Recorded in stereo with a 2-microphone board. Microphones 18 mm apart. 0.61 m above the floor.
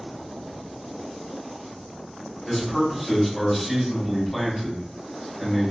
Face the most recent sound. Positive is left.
turn(degrees=0)  # may be behind; listen again after turning